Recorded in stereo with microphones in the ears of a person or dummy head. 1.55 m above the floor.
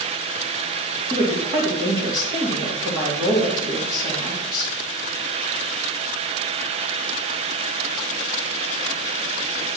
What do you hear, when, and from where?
1.1 s a woman speaking: 35° right (ahead or behind), 3 m